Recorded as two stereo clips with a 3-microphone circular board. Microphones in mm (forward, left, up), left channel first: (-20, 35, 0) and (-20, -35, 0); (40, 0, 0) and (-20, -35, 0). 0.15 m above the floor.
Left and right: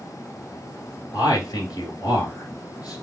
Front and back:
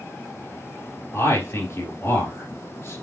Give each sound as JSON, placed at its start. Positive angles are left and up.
{"t": 1.1, "sound": "a man speaking", "azimuth_deg": 75, "distance_m": 2.5}